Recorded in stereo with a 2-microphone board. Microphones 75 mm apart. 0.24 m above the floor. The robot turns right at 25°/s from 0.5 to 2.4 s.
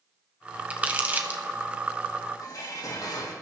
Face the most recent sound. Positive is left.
turn(degrees=60)  # may be behind; listen again after turning